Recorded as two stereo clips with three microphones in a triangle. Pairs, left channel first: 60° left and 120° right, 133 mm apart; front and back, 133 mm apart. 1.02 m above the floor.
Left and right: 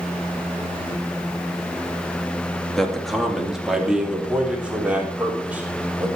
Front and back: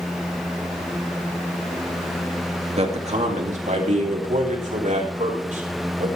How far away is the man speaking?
About 2.0 m.